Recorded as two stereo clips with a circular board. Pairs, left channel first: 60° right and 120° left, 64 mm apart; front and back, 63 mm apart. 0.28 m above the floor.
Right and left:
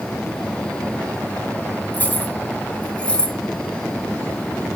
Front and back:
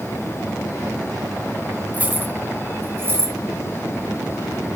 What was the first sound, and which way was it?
Keys jangling, 115° right.